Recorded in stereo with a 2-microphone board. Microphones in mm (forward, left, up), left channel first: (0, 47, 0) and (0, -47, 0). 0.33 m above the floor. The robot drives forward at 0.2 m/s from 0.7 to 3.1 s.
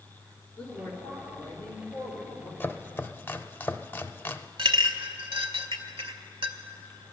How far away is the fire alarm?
No fire alarm in this recording.